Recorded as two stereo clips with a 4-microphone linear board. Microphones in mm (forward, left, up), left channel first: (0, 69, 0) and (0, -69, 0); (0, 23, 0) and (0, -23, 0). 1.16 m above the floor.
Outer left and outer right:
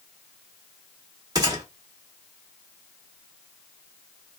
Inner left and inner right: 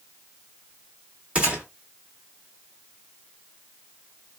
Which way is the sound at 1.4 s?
25° right (ahead or behind).